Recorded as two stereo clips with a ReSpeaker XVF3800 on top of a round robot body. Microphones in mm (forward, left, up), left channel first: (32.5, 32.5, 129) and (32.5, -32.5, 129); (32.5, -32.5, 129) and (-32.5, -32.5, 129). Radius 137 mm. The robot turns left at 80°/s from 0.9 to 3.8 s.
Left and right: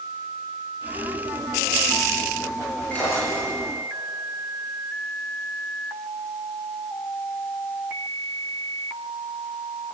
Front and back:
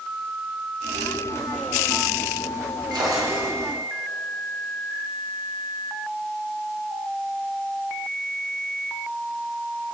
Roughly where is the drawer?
Behind.